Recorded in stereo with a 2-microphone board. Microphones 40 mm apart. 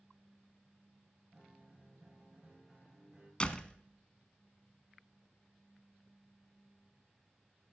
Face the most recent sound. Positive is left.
turn(degrees=25)  # may be behind; listen again after turning